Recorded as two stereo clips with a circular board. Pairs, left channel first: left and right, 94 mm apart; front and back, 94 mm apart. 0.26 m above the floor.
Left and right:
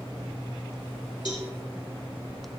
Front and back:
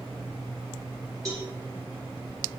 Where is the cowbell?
125° left, 3 m.